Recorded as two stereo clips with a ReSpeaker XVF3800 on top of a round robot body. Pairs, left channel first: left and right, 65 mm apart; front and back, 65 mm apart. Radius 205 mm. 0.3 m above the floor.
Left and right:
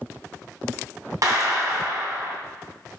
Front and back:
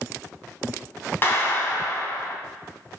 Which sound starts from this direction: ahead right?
A clap, at 1.2 s.